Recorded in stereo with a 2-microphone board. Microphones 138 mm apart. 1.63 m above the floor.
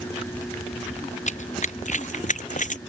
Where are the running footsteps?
60° left (ahead or behind); by 2.8 s 65° left (ahead or behind).